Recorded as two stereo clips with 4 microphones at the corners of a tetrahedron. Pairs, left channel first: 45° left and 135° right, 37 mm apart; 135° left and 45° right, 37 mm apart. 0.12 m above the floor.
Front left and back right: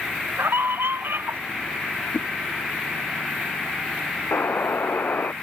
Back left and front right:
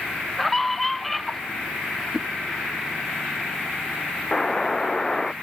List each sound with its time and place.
0.4 s a scream: 140° right
2.1 s a whoosh: 45° left
4.3 s a buzzer: 60° left